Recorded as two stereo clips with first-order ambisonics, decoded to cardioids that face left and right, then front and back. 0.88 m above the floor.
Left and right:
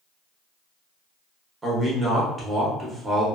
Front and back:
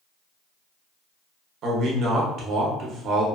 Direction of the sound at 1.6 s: 160° right.